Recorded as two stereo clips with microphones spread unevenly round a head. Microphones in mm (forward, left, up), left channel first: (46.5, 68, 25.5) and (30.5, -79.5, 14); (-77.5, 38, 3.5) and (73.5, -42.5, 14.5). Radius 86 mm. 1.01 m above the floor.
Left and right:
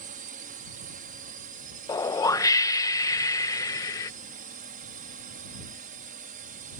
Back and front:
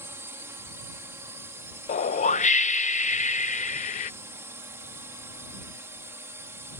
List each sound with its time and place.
0.0 s a drone: 100° right
1.9 s a whoosh: 150° left